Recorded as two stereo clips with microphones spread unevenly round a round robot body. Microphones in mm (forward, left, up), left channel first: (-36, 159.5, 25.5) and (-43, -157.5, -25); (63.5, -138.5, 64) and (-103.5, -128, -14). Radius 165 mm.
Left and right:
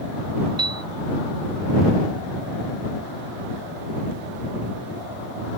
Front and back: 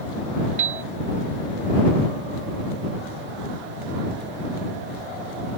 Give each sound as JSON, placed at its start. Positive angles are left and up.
{"t": 0.6, "sound": "a piano", "azimuth_deg": -170}